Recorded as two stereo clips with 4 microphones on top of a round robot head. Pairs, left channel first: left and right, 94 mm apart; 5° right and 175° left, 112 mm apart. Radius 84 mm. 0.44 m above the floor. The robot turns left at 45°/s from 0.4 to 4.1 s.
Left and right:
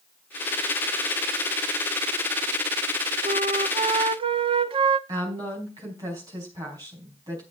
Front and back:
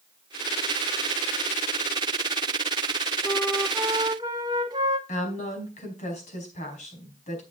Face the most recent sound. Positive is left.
turn(degrees=-30)